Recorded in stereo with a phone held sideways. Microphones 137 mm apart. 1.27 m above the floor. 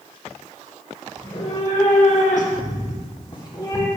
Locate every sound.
1.2 s a cat meowing: 45° left (ahead or behind), 2.0 m; by 3.9 s 25° left (ahead or behind), 1.9 m